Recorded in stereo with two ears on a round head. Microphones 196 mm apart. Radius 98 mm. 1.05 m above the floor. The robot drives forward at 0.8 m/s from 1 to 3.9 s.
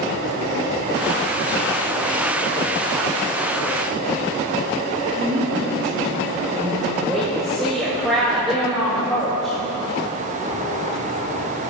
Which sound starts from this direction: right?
A woman speaking, at 5.2 s.